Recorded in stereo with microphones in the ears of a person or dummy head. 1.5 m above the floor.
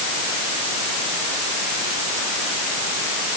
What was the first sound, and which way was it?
Only background noise.